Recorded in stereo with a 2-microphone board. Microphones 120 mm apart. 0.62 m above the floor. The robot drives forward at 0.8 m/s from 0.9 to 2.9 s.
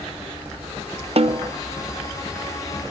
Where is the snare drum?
55° right (ahead or behind); by 1.5 s 40° right (ahead or behind).